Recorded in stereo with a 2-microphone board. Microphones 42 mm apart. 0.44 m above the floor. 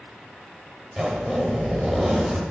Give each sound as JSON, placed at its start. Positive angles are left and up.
{"t": 1.0, "sound": "a zipper", "side_deg": -10, "distance_m": 0.8}